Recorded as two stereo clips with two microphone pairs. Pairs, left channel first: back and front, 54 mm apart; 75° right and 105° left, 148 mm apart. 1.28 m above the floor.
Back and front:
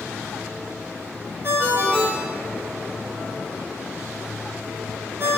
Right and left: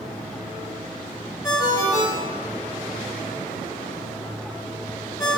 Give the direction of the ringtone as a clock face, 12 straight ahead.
12 o'clock.